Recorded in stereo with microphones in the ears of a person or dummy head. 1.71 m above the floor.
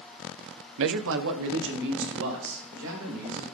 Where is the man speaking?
75° right (ahead or behind), 0.5 m; by 3.4 s 70° right (ahead or behind), 3.5 m.